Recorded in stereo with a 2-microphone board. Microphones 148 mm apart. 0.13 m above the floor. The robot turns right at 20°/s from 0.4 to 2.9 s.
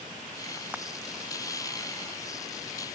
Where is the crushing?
10° right (ahead or behind).